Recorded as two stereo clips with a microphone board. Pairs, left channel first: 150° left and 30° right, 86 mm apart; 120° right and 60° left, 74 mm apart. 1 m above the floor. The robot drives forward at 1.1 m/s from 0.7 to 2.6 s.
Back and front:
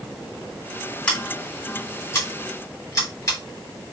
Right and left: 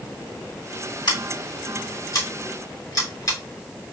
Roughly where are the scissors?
Behind right.